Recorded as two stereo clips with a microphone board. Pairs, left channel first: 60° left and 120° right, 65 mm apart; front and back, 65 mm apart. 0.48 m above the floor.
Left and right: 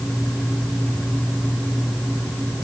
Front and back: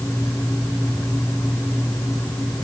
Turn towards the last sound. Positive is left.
No sound to turn to.